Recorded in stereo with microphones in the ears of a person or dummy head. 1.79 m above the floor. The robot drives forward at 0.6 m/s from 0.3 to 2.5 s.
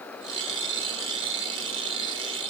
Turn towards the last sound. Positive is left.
No sound to turn to.